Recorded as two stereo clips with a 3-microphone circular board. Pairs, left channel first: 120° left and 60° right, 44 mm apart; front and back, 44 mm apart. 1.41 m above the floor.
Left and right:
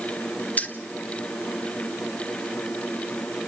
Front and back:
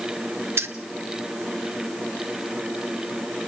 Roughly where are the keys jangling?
Behind.